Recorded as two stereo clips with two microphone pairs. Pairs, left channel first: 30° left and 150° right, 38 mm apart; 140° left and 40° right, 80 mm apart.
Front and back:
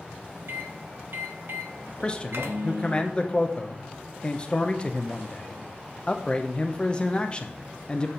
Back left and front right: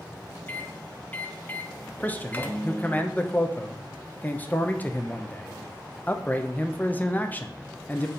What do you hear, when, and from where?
0.5 s a microwave: 150° right, 0.8 m
2.0 s a man speaking: 80° left, 0.6 m